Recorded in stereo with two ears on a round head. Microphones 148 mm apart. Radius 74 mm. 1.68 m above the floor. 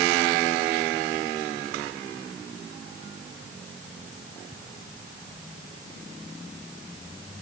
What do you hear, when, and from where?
Only background noise.